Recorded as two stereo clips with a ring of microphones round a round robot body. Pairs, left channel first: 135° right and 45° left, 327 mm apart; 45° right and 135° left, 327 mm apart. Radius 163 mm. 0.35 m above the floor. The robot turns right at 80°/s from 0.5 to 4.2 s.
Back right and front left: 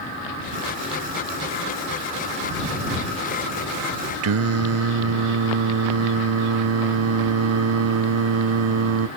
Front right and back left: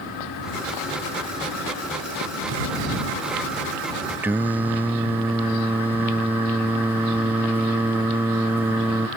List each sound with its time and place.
4.2 s singing: 55° left